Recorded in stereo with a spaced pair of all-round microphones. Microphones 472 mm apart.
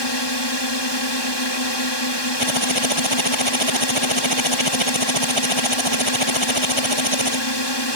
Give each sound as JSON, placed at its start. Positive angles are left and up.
{"t": 0.0, "sound": "a drone", "side_deg": 60}
{"t": 2.4, "sound": "typing on a keyboard", "side_deg": -85}